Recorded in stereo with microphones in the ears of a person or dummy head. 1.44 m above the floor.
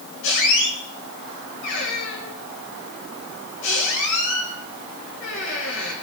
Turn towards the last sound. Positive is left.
turn(degrees=65)  # may be behind; listen again after turning